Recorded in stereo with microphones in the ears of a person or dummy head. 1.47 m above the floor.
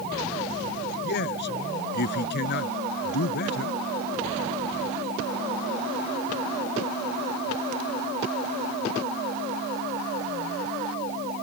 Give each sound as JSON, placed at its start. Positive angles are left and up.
{"t": 1.0, "sound": "a man speaking", "side_deg": 60}